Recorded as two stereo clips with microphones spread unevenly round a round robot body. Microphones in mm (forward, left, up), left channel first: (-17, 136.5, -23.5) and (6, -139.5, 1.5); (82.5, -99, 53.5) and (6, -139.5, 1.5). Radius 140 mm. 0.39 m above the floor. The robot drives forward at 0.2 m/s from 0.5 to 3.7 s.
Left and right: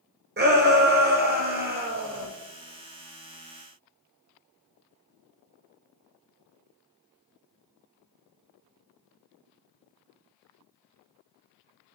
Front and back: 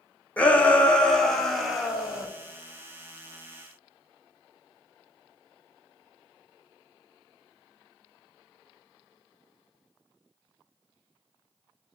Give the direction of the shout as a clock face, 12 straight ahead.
3 o'clock.